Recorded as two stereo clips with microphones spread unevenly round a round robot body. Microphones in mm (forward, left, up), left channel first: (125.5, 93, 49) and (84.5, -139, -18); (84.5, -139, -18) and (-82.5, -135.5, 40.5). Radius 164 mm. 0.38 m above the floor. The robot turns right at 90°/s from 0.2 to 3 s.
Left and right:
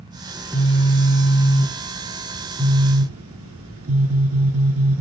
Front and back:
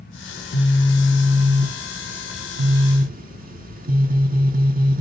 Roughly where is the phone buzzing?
Ahead right.